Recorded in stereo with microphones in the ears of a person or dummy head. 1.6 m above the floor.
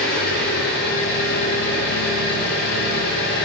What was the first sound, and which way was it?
An engine running, 50° left (ahead or behind).